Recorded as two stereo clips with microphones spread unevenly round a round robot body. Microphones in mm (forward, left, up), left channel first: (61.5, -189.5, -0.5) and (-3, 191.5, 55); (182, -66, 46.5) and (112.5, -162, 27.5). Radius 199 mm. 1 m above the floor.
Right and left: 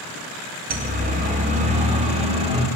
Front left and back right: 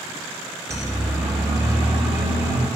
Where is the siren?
170° left, 2 m; by 2.7 s 175° left, 3 m.